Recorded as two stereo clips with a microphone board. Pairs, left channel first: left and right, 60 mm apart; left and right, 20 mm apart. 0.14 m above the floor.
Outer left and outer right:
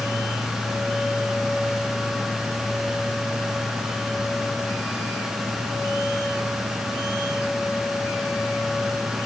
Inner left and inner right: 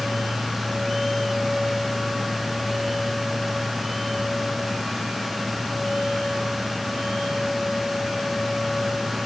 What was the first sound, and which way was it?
Only background noise.